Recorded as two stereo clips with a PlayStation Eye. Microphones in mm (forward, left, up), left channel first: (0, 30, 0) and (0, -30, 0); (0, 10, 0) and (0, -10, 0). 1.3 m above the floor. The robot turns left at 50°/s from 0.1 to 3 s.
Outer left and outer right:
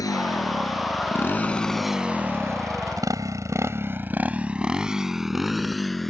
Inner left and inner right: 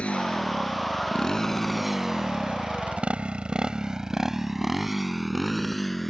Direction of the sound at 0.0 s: 80° left.